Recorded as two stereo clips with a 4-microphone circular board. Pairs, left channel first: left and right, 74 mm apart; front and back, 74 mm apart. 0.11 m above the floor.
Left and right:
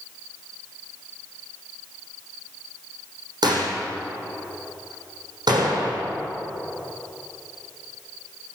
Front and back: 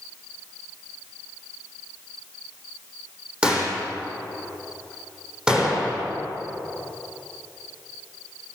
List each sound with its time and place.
3.4 s a gunshot: 105° right, 6 m